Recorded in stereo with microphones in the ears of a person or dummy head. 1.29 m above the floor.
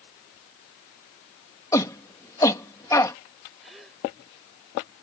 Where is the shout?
15° left (ahead or behind).